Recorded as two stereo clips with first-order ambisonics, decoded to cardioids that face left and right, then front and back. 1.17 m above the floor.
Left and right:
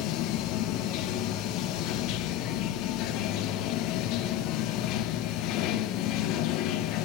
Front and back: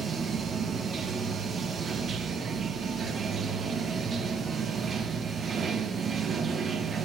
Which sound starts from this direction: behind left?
Running water, at 0.0 s.